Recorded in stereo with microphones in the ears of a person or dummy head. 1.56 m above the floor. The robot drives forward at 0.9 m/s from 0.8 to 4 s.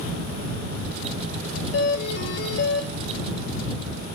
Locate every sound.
1.7 s a doorbell: 70° left (ahead or behind), 4.5 m; by 2.9 s 60° left (ahead or behind), 5 m